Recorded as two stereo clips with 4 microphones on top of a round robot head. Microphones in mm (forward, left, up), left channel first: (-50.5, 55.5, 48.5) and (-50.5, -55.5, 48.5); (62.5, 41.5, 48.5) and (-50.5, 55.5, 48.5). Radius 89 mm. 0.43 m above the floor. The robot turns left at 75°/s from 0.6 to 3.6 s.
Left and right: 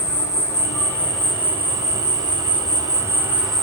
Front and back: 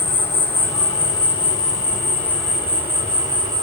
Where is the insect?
45° left, 1.5 m; by 3.6 s straight behind, 1.5 m.